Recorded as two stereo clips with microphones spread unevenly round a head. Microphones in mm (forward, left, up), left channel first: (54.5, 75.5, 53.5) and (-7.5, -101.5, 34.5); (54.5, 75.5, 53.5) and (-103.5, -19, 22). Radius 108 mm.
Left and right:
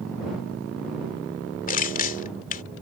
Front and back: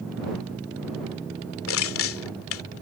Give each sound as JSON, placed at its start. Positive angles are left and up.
{"t": 1.7, "sound": "crushing", "azimuth_deg": 25}